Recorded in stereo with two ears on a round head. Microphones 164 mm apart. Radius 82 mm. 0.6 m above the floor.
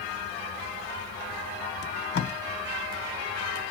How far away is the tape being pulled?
About 0.7 m.